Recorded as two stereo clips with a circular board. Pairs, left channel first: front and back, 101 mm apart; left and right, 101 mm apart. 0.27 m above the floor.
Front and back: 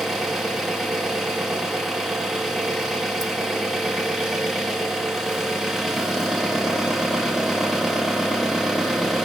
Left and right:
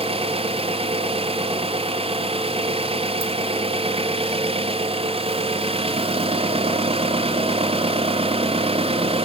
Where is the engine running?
95° right, 2.5 m.